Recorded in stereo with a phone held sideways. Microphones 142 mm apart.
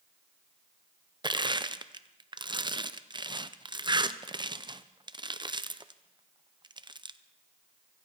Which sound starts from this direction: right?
Crushing, at 1.2 s.